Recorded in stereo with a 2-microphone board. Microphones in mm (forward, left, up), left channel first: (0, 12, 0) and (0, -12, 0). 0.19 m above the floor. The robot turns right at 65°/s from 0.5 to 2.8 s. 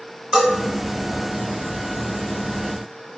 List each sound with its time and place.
0.3 s a bell: 35° right (ahead or behind), 1.5 m